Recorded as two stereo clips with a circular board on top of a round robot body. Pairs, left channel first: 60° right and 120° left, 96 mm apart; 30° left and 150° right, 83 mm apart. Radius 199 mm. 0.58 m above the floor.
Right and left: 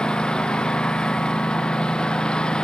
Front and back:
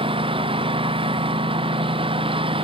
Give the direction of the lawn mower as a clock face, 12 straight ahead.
5 o'clock.